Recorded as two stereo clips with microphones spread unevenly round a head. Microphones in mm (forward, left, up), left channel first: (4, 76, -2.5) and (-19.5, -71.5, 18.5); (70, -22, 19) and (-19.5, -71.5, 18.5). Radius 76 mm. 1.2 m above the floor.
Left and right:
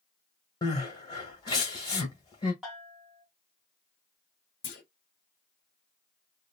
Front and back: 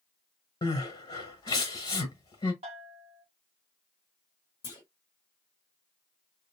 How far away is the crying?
About 1.1 m.